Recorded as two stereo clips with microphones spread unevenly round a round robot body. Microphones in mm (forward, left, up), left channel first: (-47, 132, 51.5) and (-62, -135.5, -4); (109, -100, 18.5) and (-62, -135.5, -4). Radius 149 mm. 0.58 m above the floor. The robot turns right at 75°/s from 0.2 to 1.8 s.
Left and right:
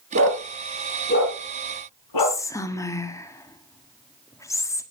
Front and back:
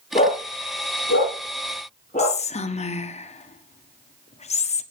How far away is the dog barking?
About 8 m.